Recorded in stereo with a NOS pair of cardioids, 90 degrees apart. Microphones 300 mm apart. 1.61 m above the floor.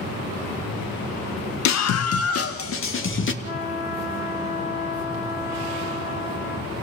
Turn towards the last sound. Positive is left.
turn(degrees=50)